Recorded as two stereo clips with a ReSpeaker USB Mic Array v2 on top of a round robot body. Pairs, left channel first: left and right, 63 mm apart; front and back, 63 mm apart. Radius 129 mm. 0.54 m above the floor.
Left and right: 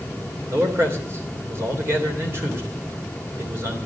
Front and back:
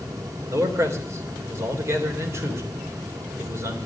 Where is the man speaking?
140° right, 3 m.